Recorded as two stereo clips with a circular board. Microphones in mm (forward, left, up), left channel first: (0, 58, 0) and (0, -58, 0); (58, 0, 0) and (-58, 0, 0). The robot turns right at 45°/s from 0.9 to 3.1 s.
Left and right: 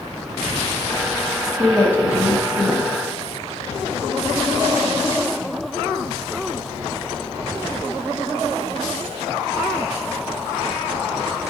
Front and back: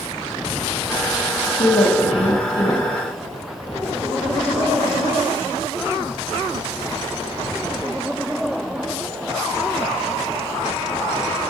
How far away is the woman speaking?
About 1.6 m.